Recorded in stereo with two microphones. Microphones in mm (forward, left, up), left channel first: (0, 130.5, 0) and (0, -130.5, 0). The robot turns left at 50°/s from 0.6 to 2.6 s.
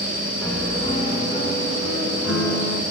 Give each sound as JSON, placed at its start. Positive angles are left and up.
{"t": 0.4, "sound": "a piano", "azimuth_deg": 175, "distance_m": 1.4}